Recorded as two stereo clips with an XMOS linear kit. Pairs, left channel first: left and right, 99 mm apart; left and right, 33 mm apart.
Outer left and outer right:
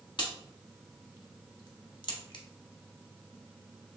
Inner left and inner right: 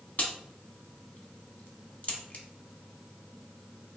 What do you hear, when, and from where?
0.2 s a crack: 50° left (ahead or behind), 0.8 m